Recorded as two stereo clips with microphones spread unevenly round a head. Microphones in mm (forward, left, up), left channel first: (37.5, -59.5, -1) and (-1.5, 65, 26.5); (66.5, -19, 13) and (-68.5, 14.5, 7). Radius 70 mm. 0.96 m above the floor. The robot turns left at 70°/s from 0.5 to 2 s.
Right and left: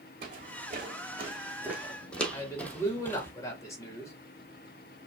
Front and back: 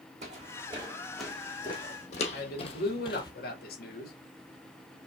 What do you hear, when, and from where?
0.2 s footsteps: 125° left, 3 m; by 3.3 s 10° left, 1.1 m
2.3 s a man speaking: 10° right, 2 m